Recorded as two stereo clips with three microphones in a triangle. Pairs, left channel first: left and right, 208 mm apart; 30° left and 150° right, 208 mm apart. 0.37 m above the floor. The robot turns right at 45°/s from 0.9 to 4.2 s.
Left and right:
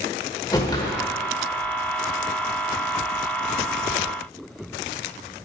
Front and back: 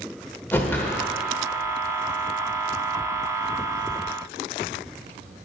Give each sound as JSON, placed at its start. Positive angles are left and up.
{"t": 0.5, "sound": "a whoosh", "azimuth_deg": 90, "distance_m": 1.1}